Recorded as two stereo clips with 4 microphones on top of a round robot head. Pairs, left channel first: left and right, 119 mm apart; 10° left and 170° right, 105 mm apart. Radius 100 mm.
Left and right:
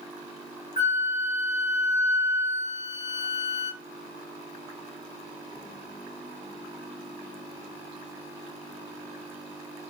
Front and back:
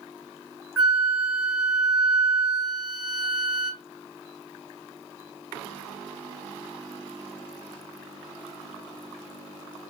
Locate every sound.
0.8 s a flute: 105° left, 1.0 m